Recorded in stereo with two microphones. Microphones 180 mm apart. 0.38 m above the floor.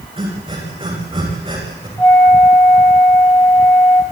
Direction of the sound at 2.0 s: 10° left (ahead or behind).